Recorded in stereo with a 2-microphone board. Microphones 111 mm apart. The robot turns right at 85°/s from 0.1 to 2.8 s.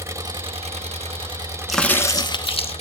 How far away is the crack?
About 1.0 m.